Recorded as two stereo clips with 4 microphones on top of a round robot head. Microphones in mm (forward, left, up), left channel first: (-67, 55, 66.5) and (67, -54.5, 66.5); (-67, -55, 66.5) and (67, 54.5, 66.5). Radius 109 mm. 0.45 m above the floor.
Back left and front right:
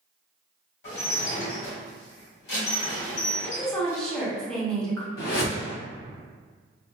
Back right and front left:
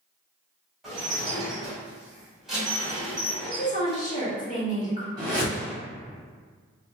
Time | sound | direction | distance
0.8 | dishes clattering | 130° left | 1.9 m
3.4 | a woman speaking | 135° right | 1.3 m
5.2 | a whoosh | 105° left | 2.0 m